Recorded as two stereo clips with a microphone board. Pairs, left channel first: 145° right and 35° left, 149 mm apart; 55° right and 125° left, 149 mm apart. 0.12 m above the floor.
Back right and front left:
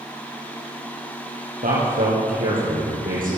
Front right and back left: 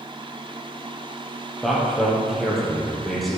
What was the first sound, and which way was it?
A man speaking, 35° left.